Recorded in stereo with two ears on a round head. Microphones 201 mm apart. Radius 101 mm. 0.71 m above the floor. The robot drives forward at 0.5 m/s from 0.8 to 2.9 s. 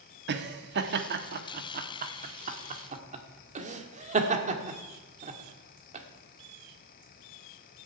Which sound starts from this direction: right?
Laughter, at 0.3 s.